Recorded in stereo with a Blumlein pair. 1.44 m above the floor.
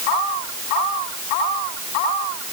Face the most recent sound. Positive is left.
No sound to turn to.